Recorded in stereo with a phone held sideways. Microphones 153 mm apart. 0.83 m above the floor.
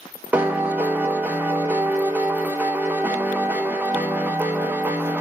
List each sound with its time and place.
0.3 s a piano: 10° right (ahead or behind), 0.5 m